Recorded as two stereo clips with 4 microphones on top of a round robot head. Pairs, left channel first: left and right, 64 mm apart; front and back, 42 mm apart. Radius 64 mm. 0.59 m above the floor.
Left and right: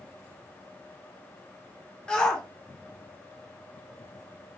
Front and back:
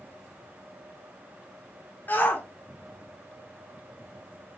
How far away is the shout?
About 1.9 m.